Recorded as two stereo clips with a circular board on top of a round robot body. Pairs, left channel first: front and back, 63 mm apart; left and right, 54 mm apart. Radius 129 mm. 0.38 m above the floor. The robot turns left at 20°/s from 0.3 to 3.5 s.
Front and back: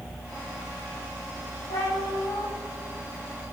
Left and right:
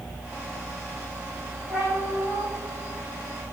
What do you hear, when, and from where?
1.7 s a cat meowing: 10° right, 6.5 m; by 2.5 s 25° right, 6.5 m